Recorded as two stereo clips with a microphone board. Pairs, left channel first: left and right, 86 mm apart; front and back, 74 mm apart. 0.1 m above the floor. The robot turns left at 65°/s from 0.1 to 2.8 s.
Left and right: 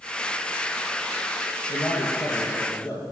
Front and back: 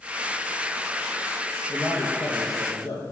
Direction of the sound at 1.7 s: 90° left.